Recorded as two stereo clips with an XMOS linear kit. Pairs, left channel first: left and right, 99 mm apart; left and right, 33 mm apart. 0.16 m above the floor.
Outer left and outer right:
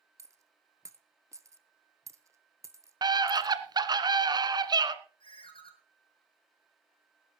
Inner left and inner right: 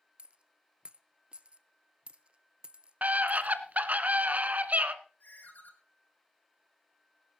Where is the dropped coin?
30° right (ahead or behind), 0.9 m.